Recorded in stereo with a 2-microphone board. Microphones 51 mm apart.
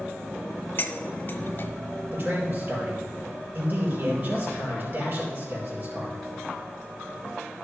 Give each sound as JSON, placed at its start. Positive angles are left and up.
{"t": 0.8, "sound": "cutlery clinking", "side_deg": 40, "distance_m": 0.7}
{"t": 2.1, "sound": "a man speaking", "side_deg": -35, "distance_m": 4.5}